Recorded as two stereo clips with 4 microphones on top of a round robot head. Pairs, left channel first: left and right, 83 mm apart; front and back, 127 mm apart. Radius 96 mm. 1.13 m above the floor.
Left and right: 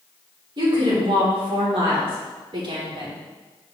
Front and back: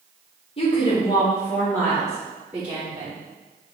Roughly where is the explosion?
I don't hear an explosion.